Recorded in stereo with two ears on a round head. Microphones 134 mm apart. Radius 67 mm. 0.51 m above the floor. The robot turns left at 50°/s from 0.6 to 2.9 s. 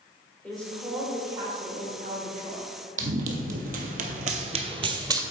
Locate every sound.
0.4 s a woman speaking: 10° left, 2 m; by 2.7 s 95° right, 2 m
3.0 s running footsteps: 55° right (ahead or behind), 1.1 m; by 5.2 s 25° right (ahead or behind), 0.8 m